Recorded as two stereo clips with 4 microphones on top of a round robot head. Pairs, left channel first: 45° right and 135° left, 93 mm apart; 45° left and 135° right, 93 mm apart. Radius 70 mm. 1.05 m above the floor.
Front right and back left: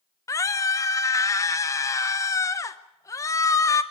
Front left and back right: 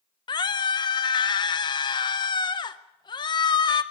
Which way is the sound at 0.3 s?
10° left.